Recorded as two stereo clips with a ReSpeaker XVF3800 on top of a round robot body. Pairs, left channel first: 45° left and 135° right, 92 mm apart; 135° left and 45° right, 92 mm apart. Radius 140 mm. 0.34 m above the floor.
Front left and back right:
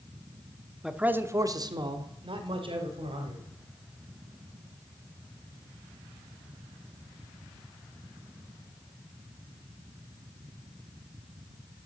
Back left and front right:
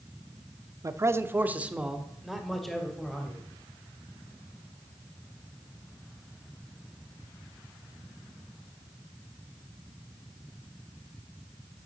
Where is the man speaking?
50° right, 0.9 m; by 3.4 s 140° right, 2.5 m.